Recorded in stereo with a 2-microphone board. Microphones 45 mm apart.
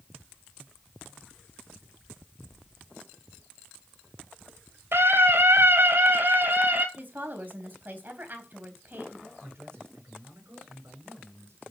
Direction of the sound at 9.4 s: 60° right (ahead or behind).